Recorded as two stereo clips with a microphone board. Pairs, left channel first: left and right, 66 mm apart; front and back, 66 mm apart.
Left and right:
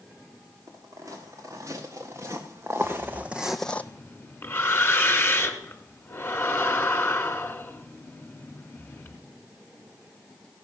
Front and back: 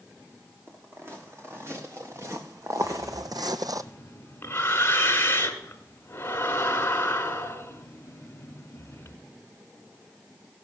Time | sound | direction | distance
0.7 | footsteps | 125° right | 3 m
2.8 | breathing | 40° left | 1.0 m